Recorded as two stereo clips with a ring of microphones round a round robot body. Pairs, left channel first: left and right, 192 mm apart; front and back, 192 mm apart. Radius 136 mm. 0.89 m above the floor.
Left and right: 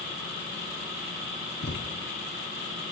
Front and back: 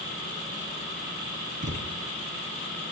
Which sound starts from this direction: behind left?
A thud, at 1.6 s.